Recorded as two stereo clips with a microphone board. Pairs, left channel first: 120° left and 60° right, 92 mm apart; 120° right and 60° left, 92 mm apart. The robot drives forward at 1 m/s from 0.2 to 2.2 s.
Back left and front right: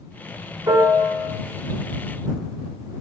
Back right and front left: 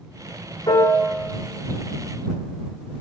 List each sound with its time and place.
0.7 s a piano: 95° right, 1.7 m; by 1.3 s 115° right, 1.9 m